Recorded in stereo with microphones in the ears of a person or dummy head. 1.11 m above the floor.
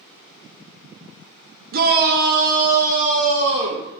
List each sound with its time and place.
1.7 s a shout: 45° right (ahead or behind), 0.8 m; by 3.9 s 35° right (ahead or behind), 1.7 m